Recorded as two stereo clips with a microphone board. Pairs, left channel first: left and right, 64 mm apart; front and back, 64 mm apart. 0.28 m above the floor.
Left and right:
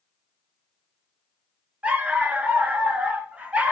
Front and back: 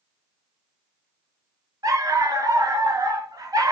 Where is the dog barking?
160° right, 0.7 m.